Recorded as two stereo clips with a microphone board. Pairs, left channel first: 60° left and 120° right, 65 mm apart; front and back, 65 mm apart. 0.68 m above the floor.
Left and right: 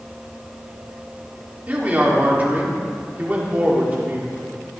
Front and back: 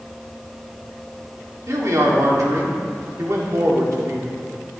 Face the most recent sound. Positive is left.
turn(degrees=-175)